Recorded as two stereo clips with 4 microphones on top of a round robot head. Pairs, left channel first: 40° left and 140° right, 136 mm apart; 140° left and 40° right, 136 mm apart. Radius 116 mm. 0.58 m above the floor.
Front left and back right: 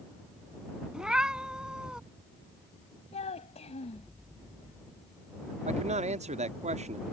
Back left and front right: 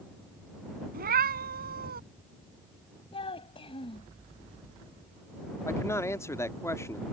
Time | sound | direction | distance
0.9 | a cat meowing | 55° right | ?
3.1 | a child speaking | 85° left | ?
5.7 | a man speaking | 155° right | ?